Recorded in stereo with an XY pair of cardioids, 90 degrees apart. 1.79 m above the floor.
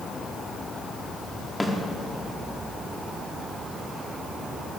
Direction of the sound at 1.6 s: 15° left.